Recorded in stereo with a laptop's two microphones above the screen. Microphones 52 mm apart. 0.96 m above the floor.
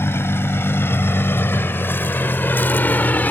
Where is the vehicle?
55° left (ahead or behind); by 3.3 s 35° left (ahead or behind).